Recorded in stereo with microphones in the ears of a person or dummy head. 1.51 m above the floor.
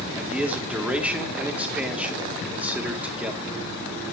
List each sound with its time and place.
0.1 s a man speaking: centre (ahead or behind), 1.7 m